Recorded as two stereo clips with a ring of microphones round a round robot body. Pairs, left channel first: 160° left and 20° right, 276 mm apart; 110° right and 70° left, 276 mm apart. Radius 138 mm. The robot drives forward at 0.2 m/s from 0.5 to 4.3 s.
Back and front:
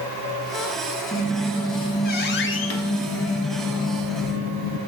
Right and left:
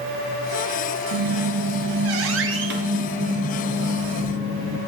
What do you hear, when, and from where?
1.1 s a squeak: 80° left, 0.5 m; by 4.8 s 140° left, 0.7 m